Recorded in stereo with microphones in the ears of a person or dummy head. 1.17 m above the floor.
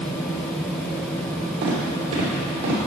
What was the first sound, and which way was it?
Footsteps, 60° right (ahead or behind).